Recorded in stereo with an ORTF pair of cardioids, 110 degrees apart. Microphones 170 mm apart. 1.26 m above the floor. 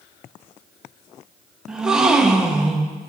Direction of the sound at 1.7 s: 5° right.